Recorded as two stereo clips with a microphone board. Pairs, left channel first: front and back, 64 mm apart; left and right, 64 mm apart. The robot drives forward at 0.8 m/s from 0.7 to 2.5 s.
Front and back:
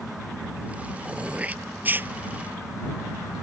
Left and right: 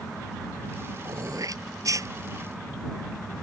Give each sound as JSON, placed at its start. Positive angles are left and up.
{"t": 1.1, "sound": "throat clearing", "azimuth_deg": -105}